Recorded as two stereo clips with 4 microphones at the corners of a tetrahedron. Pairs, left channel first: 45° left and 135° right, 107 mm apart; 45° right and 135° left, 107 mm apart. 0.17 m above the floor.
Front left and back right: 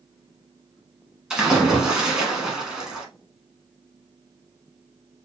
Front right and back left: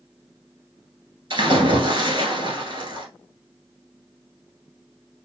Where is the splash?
145° left, 1.3 m.